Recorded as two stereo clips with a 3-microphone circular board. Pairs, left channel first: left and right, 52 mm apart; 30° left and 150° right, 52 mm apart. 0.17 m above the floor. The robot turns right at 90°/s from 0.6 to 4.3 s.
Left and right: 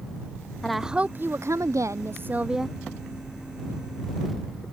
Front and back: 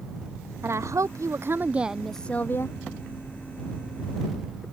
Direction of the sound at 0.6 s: 170° left.